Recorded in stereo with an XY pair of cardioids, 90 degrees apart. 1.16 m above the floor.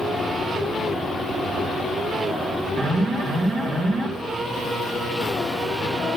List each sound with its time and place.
2.8 s an alarm: 65° right, 3 m